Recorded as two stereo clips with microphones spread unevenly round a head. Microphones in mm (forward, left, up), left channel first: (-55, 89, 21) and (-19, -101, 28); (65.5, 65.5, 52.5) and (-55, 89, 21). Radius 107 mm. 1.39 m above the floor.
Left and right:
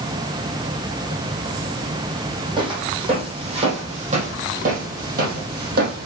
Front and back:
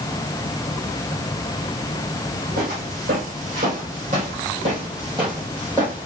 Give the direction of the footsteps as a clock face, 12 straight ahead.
5 o'clock.